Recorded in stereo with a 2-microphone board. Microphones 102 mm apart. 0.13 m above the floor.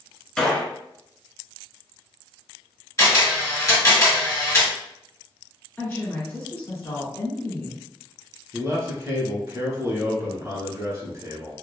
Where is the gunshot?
10° left (ahead or behind), 0.7 m.